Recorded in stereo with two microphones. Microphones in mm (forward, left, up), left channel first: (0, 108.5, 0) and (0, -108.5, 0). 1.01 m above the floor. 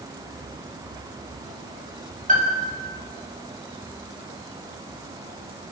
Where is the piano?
35° right (ahead or behind), 6.5 m.